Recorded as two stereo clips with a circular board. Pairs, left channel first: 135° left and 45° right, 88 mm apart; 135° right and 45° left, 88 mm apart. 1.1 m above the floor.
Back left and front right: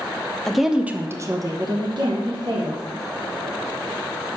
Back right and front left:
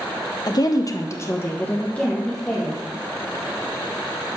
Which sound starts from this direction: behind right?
A woman speaking, at 0.5 s.